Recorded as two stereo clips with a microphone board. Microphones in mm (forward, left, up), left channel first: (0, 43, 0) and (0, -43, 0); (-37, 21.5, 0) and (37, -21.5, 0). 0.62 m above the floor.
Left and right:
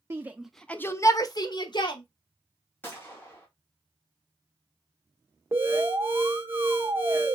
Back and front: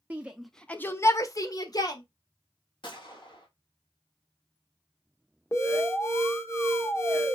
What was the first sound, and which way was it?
A shout, 80° right.